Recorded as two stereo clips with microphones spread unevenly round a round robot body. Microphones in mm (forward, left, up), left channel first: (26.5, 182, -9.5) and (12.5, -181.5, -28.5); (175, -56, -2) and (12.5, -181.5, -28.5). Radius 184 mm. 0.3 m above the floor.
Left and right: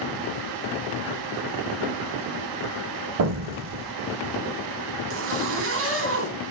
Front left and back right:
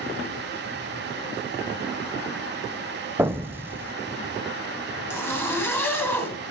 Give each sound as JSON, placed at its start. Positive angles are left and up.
{"t": 3.2, "sound": "an explosion", "azimuth_deg": -70, "distance_m": 0.6}
{"t": 5.1, "sound": "a zipper", "azimuth_deg": -45, "distance_m": 2.5}